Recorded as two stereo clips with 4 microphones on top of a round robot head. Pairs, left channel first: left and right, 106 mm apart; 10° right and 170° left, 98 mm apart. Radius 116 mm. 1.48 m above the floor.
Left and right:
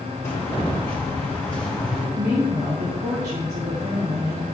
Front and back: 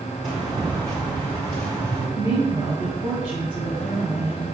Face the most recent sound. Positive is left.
turn(degrees=-110)